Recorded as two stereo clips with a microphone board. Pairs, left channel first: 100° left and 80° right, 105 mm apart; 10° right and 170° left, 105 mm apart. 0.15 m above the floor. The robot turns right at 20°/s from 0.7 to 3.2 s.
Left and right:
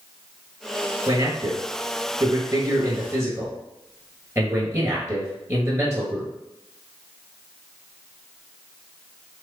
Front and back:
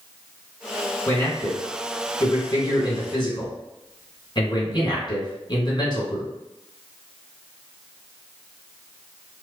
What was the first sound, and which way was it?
A man speaking, 70° right.